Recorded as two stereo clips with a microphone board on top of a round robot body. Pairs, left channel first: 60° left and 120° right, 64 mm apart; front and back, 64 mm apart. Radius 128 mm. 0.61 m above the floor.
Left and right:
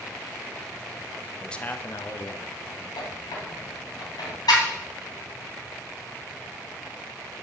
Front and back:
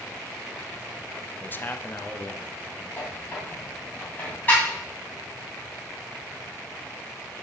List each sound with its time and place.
1.4 s a man speaking: 25° right, 0.8 m; by 2.9 s 65° left, 2 m
3.0 s a squeak: 65° left, 3 m